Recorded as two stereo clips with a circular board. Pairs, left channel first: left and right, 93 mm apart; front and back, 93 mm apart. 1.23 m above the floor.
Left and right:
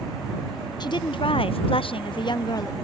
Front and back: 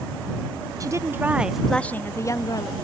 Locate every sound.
0.8 s a woman speaking: 130° left; by 2.7 s 45° left